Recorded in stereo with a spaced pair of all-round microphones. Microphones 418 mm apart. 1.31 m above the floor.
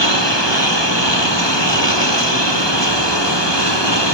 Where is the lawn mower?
85° left; by 4.2 s 80° left.